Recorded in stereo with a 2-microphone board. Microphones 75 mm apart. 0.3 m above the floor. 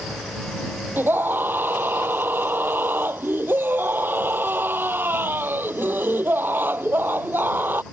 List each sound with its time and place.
1.0 s a scream: 25° right (ahead or behind)